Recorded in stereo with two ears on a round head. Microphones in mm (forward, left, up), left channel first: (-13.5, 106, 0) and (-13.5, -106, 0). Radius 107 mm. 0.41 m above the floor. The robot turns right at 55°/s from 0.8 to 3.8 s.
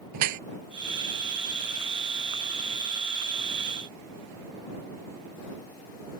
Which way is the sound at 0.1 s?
85° right.